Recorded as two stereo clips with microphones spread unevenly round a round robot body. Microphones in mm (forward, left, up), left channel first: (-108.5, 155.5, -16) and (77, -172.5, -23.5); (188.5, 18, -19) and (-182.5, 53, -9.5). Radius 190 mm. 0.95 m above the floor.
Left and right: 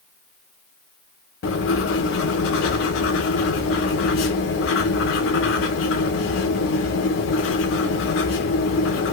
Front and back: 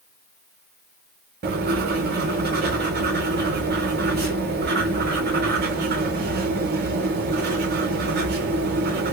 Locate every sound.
1.4 s writing: 135° left, 0.6 m